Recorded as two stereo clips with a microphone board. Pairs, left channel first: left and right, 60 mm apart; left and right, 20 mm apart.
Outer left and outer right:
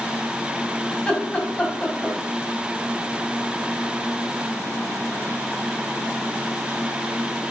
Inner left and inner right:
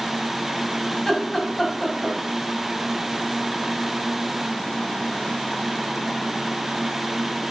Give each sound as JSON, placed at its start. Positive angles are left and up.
{"t": 0.9, "sound": "laughter", "side_deg": 20, "distance_m": 3.5}